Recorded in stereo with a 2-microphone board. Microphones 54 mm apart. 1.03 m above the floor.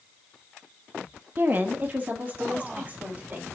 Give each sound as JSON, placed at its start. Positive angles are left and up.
{"t": 1.4, "sound": "a woman speaking", "side_deg": -40, "distance_m": 1.4}